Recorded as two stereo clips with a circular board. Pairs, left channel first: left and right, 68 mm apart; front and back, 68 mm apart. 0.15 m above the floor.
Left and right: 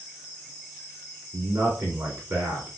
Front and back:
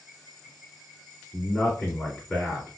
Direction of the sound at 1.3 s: 80° right.